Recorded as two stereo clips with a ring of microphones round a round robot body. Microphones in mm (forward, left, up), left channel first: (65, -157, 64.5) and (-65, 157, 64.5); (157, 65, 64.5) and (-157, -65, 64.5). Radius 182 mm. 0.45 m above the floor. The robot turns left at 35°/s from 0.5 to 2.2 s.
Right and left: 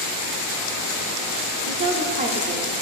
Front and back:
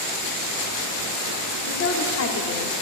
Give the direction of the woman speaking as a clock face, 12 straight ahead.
10 o'clock.